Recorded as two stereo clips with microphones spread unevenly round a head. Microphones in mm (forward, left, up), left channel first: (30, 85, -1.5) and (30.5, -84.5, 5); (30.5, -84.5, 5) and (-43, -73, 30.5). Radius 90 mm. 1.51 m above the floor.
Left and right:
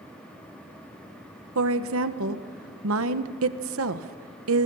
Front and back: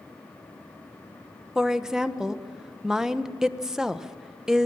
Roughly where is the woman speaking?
Right.